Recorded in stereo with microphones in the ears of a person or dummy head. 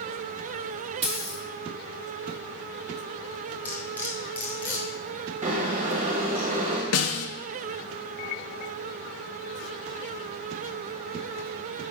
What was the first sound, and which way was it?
A dropped coin, 25° right (ahead or behind).